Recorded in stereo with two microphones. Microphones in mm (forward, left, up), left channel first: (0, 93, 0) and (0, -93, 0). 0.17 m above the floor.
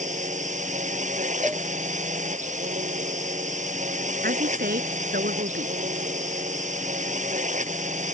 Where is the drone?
40° right (ahead or behind).